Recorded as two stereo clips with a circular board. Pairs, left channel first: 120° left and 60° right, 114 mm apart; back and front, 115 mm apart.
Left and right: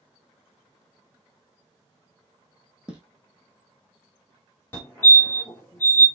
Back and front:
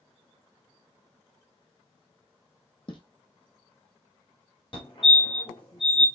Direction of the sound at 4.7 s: 175° right.